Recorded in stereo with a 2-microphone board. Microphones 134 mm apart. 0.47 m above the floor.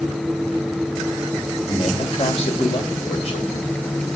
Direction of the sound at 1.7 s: 55° left (ahead or behind).